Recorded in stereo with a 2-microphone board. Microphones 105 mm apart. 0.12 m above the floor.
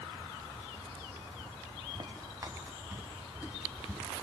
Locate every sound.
1.9 s footsteps: 40° right (ahead or behind), 1.7 m; by 4.2 s 5° right (ahead or behind), 3 m